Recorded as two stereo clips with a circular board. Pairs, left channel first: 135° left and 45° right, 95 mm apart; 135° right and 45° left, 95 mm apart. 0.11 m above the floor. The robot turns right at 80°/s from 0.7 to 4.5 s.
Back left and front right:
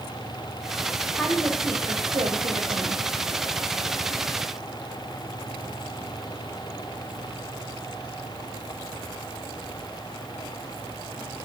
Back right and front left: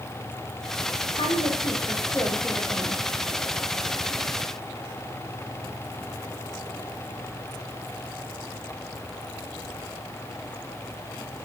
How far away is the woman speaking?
About 6 m.